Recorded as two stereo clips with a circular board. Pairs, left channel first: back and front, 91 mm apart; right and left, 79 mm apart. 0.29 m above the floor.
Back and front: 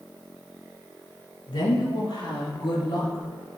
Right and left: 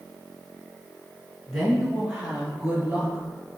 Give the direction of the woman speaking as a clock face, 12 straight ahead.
6 o'clock.